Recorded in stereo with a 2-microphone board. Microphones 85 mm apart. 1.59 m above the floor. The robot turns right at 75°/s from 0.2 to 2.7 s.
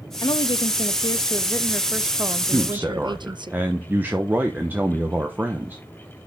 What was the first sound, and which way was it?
A woman speaking, 55° left.